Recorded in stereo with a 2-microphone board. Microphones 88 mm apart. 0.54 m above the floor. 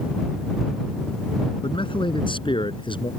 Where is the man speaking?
75° left (ahead or behind); by 3.1 s 70° left (ahead or behind).